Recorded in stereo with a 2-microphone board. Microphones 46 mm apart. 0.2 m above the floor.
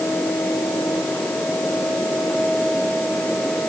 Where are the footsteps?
No footsteps in this recording.